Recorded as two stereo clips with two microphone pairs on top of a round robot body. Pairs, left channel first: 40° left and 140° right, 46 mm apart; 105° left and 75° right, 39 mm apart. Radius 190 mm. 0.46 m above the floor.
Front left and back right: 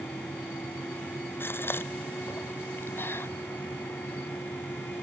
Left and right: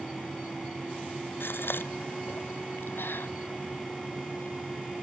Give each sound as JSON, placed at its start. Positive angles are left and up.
{"t": 1.4, "sound": "a gasp", "azimuth_deg": 80}